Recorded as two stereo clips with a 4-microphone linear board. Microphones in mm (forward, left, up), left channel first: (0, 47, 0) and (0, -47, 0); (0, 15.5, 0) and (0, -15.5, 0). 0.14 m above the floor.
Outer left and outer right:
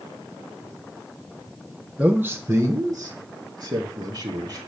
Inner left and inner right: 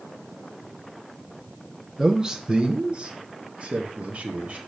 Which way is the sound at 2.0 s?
15° right (ahead or behind).